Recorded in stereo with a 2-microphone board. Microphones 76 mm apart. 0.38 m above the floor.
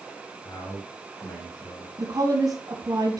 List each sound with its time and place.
0.5 s a man speaking: 60° left (ahead or behind), 7 m; by 1.9 s 55° left (ahead or behind), 9 m
2.0 s a woman speaking: 55° right (ahead or behind), 2.5 m